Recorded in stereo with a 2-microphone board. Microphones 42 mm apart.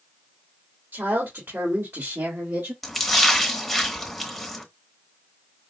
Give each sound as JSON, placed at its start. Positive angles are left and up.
{"t": 0.9, "sound": "a woman speaking", "side_deg": -70, "distance_m": 1.9}
{"t": 2.8, "sound": "a splash", "side_deg": 0, "distance_m": 0.9}